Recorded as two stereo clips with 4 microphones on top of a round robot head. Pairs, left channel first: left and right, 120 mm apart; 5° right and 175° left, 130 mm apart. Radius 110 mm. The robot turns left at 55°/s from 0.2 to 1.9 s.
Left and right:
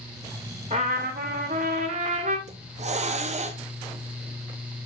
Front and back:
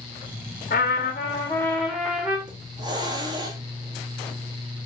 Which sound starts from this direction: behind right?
A hiss, at 2.5 s.